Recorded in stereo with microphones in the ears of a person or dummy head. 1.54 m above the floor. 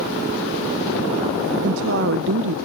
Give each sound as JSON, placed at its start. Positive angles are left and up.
{"t": 1.6, "sound": "a woman speaking", "side_deg": -70}